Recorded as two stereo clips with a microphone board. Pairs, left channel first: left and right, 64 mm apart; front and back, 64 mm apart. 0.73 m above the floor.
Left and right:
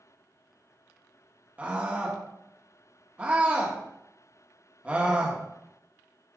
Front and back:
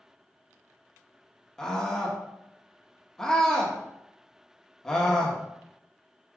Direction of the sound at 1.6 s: 65° right.